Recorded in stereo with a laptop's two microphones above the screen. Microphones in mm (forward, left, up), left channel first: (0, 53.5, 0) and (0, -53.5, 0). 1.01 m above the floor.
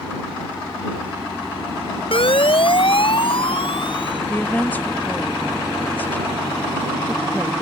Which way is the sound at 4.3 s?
15° left (ahead or behind).